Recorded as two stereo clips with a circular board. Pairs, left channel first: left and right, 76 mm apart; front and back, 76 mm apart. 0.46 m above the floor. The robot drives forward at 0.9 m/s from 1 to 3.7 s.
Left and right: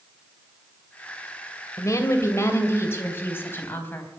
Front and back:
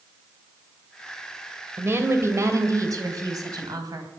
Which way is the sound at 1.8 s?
125° left.